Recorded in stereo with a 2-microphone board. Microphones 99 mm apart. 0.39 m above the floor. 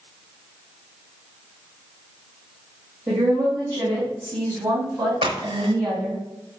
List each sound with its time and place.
3.1 s a woman speaking: 30° right (ahead or behind), 1.8 m; by 6.2 s 35° right (ahead or behind), 4 m
5.2 s a crack: 60° right (ahead or behind), 0.9 m